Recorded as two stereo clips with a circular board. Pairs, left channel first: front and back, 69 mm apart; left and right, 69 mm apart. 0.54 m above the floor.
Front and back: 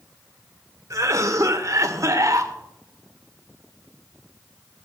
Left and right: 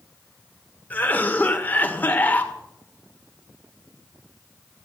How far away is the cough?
About 1.8 m.